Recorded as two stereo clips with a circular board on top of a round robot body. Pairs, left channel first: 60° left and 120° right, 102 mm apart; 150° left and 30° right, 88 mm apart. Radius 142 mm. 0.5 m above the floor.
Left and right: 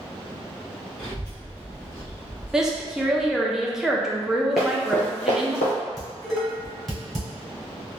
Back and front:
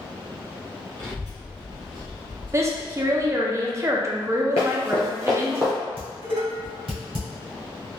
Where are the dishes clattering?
30° right, 1.9 m.